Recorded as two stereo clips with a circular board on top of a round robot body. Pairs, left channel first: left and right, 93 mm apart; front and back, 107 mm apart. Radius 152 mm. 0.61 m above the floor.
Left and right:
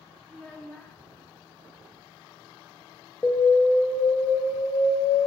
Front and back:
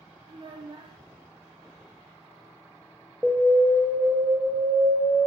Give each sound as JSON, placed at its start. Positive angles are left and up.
{"t": 0.3, "sound": "a child speaking", "azimuth_deg": 165, "distance_m": 0.6}
{"t": 3.2, "sound": "an alarm", "azimuth_deg": 100, "distance_m": 0.8}